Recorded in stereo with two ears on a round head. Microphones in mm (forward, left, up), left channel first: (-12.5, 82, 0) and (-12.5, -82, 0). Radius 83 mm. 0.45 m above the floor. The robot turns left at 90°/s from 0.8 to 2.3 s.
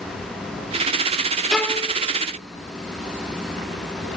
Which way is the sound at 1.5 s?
Straight behind.